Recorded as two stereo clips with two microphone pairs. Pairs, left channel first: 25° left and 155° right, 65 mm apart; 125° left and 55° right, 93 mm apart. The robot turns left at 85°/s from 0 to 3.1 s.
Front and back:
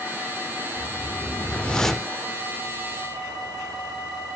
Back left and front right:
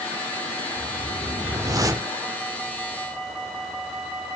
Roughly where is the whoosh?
Ahead left.